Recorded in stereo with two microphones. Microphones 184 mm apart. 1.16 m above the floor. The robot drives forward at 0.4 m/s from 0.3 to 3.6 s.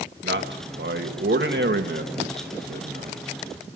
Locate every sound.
0.2 s a man speaking: 75° right (ahead or behind), 1.6 m; by 3.2 s 55° right (ahead or behind), 1.9 m